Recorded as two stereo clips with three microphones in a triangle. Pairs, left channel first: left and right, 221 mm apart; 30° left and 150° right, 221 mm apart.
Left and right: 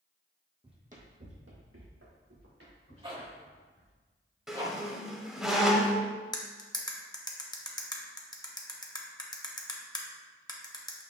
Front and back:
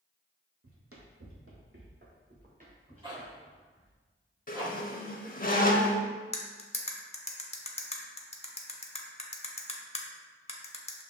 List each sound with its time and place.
0.6 s running footsteps: 160° right, 0.9 m; by 4.0 s 85° right, 2.5 m
3.0 s a zipper: 115° right, 1.0 m
4.5 s a squeak: straight ahead, 0.5 m
6.3 s cutlery clinking: 40° left, 0.6 m